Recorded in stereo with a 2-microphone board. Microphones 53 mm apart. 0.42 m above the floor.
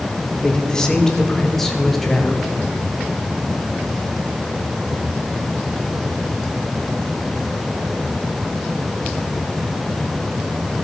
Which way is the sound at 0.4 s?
20° left (ahead or behind).